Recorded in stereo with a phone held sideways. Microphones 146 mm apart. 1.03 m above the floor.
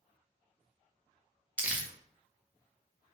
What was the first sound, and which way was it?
Crumpling, 10° right (ahead or behind).